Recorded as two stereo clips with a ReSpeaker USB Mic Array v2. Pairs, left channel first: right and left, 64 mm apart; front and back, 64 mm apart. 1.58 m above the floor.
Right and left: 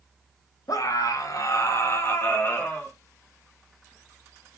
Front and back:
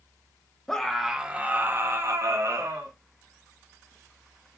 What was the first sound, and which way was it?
A scream, 80° right.